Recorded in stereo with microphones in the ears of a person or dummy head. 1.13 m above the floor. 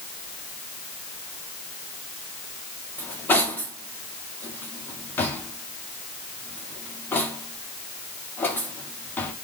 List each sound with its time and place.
3.0 s cutlery clinking: 15° left (ahead or behind), 1.8 m